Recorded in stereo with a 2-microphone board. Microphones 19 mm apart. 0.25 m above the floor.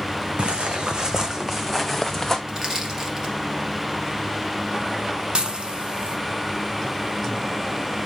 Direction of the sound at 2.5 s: 35° right (ahead or behind).